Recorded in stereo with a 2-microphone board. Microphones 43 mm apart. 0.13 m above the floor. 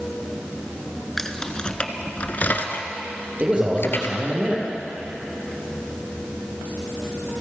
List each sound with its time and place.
1.2 s keys jangling: 10° left (ahead or behind), 0.9 m; by 4.2 s 60° left (ahead or behind), 1.5 m
3.4 s a man speaking: 30° right (ahead or behind), 4.5 m